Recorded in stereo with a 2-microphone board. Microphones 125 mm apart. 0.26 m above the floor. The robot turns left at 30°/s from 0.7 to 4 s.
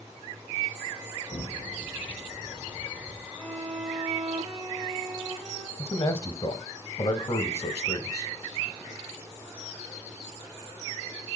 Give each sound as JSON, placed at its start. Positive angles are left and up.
{"t": 1.3, "sound": "an explosion", "side_deg": 60, "distance_m": 4.5}
{"t": 3.4, "sound": "a violin", "side_deg": 10, "distance_m": 3.5}
{"t": 5.8, "sound": "a man speaking", "side_deg": 30, "distance_m": 1.1}